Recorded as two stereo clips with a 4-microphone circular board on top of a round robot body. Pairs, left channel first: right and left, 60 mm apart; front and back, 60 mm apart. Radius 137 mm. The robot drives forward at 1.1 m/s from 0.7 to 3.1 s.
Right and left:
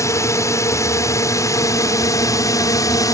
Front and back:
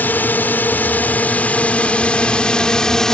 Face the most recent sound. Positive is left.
turn(degrees=-80)